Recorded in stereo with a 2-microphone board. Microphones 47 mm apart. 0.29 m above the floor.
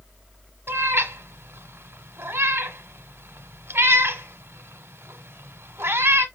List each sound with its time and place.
0.7 s a cat meowing: 55° right (ahead or behind), 1.1 m